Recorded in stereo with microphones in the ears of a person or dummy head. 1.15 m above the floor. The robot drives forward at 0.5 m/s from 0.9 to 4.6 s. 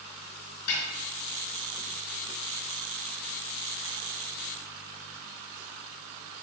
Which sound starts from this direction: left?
A snare drum, at 0.7 s.